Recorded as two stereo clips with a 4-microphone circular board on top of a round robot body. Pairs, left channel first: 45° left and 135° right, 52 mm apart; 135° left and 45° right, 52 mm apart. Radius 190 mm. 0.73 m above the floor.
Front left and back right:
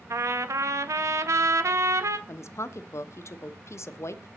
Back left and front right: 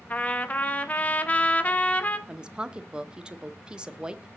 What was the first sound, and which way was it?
A trumpet, 160° right.